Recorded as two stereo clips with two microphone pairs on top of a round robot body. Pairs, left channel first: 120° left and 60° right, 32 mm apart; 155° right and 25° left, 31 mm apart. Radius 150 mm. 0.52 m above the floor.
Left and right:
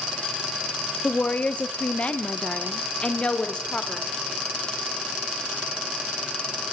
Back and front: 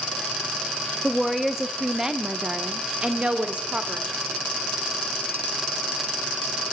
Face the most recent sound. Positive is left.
turn(degrees=60)